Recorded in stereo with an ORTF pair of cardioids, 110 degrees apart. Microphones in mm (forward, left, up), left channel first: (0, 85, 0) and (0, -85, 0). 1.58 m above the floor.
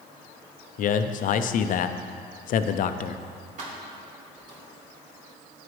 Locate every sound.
0.8 s a man speaking: 55° left, 0.6 m
3.6 s keys jangling: 55° right, 2.5 m